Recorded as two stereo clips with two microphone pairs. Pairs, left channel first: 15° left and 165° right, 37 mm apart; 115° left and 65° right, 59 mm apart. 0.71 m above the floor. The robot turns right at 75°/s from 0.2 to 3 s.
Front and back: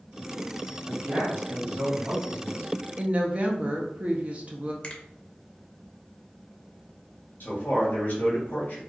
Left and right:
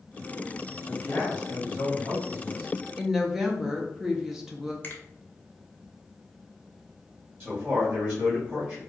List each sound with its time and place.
0.8 s a man speaking: 125° left, 1.8 m; by 2.7 s 100° right, 1.8 m
3.0 s a woman speaking: 145° right, 0.5 m
4.8 s a finger snap: 70° left, 0.5 m
7.4 s a man speaking: 10° right, 1.1 m